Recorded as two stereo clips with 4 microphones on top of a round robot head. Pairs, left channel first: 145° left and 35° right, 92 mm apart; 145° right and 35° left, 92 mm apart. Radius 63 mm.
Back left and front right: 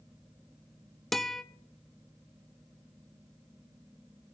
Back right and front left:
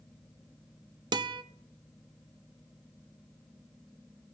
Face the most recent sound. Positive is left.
turn(degrees=55)